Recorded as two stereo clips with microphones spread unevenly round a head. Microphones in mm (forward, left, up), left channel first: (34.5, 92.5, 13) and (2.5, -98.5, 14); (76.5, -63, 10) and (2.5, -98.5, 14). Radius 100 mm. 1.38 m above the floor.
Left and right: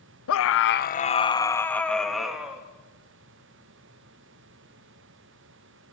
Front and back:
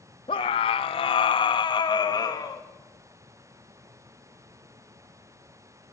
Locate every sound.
0.3 s a scream: 80° left, 1.1 m; by 2.6 s 15° right, 3 m